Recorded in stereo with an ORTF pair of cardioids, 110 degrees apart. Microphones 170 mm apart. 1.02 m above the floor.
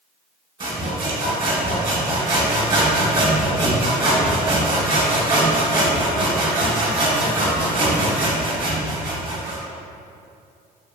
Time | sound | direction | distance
0.6 | sawing | 30° right | 0.9 m